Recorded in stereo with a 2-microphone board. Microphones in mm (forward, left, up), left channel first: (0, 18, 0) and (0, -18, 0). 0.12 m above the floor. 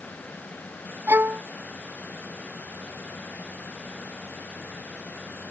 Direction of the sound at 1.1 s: 75° right (ahead or behind).